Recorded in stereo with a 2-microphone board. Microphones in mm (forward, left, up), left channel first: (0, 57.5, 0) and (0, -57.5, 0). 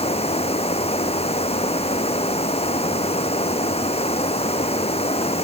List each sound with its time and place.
0.0 s running water: 60° left (ahead or behind)